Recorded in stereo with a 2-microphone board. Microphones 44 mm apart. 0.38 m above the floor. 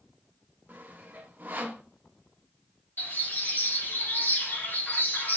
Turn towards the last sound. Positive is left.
turn(degrees=50)  # may be behind; listen again after turning